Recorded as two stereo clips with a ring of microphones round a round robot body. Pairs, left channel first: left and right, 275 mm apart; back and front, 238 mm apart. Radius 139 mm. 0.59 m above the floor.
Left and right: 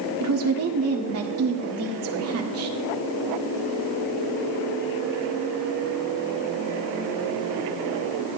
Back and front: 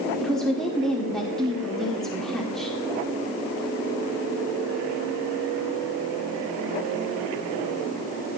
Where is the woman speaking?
95° right, 1.8 m.